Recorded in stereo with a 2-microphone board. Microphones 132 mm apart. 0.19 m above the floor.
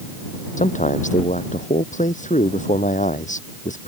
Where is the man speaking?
75° left (ahead or behind).